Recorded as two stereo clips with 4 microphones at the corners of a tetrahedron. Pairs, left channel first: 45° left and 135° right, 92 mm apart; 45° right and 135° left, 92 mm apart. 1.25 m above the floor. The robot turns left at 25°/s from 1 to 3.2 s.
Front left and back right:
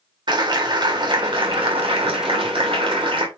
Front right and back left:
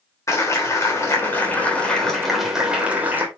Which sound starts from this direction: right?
A clap, at 0.3 s.